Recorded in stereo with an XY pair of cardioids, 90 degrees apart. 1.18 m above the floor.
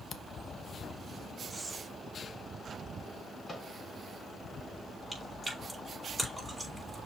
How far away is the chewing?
About 5 m.